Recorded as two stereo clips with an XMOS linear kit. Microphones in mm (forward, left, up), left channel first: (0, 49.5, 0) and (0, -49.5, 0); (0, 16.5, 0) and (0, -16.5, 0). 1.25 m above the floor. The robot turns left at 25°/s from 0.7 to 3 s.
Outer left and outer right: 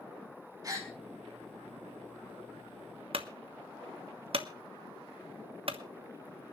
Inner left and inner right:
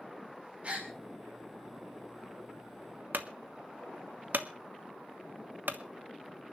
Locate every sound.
0.6 s a gasp: 40° right (ahead or behind), 4.5 m; by 0.9 s 35° right (ahead or behind), 4.5 m
3.1 s a clunk: 70° right (ahead or behind), 1.2 m